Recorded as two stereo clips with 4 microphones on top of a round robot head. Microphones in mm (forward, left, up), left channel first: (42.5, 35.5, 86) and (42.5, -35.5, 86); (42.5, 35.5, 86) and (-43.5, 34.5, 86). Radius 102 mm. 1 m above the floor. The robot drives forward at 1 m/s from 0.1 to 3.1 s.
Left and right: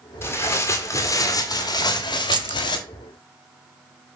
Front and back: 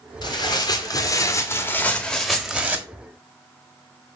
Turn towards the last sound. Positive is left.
turn(degrees=-135)